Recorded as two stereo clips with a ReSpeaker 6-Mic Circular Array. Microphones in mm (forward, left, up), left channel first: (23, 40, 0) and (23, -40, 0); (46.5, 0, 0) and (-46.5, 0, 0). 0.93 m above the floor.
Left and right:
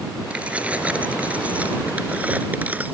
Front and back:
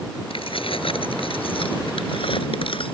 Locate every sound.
0.3 s keys jangling: 15° right; by 2.9 s 20° right